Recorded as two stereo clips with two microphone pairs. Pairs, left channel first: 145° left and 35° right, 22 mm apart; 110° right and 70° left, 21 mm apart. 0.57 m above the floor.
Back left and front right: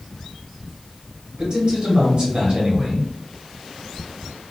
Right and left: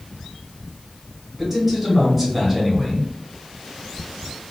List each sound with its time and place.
1.4 s a man speaking: 5° right, 1.7 m